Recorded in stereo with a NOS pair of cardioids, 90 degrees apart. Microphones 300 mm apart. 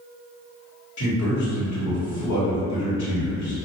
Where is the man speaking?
70° left, 1.5 m.